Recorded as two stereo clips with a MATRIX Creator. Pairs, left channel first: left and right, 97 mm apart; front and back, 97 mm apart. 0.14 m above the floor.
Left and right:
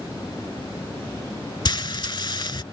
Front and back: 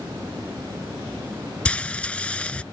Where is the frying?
75° left.